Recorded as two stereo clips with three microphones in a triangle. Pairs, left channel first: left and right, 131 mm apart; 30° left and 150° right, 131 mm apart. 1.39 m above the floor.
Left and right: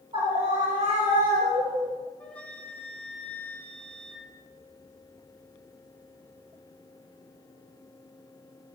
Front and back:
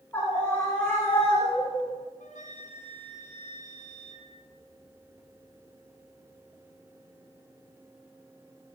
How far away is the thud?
No thud in this recording.